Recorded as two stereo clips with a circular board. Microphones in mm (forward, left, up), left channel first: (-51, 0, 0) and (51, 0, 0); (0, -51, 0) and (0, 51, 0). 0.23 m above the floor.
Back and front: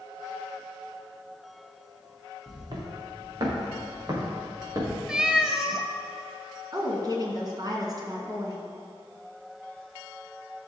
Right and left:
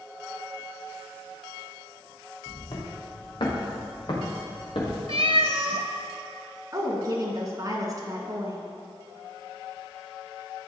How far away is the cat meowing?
About 0.8 m.